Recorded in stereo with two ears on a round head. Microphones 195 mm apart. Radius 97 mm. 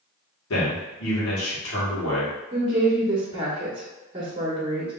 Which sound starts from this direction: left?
A man speaking, at 0.5 s.